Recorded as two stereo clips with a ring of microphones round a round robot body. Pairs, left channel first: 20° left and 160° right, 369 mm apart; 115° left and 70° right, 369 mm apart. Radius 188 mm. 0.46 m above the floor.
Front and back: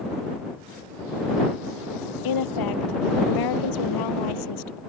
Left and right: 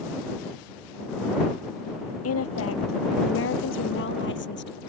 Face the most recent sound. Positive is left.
turn(degrees=50)